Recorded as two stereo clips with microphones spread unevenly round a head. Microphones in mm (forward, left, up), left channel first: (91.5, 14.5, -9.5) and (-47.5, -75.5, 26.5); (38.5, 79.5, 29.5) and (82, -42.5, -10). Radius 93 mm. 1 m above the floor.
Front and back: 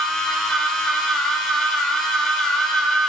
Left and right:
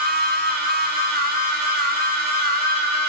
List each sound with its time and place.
0.0 s a machine running: 60° right, 1.1 m